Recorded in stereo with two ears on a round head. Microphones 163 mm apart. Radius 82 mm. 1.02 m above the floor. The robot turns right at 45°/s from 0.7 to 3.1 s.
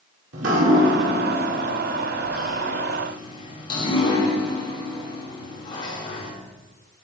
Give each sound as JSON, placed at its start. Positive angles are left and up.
{"t": 0.3, "sound": "dripping", "side_deg": -80, "distance_m": 2.5}